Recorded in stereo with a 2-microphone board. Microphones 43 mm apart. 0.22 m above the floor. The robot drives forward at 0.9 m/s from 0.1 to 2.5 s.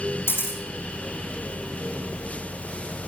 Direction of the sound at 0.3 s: 60° left (ahead or behind).